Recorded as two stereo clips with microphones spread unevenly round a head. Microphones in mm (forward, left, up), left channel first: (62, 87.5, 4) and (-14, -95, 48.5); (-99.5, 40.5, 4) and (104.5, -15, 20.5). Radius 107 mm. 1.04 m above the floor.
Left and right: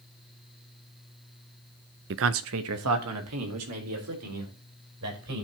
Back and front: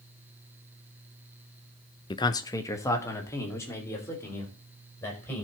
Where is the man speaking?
135° right, 0.5 m; by 5.4 s 115° right, 5 m.